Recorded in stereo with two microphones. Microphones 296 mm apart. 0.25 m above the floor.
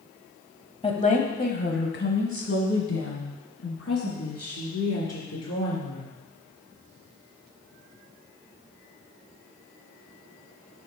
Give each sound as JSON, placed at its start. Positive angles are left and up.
{"t": 0.8, "sound": "a woman speaking", "side_deg": 20, "distance_m": 1.0}